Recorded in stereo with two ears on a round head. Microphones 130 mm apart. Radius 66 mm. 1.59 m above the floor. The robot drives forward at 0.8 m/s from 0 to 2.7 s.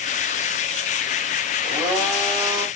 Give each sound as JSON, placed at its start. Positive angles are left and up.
{"t": 1.6, "sound": "a blender", "side_deg": -15, "distance_m": 1.3}